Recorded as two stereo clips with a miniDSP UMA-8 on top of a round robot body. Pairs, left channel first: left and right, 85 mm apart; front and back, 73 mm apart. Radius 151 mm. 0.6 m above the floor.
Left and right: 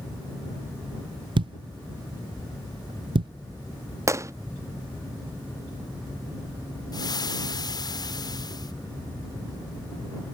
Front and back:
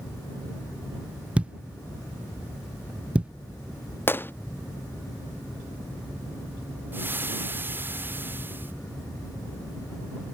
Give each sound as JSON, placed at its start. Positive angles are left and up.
{"t": 1.4, "sound": "a thud", "azimuth_deg": -105}
{"t": 4.1, "sound": "a gunshot", "azimuth_deg": -50}
{"t": 6.9, "sound": "frying", "azimuth_deg": 120}